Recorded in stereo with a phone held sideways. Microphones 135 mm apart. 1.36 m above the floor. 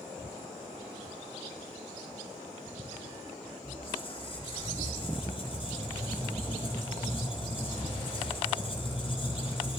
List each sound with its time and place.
3.6 s a squeak: 40° left (ahead or behind), 4 m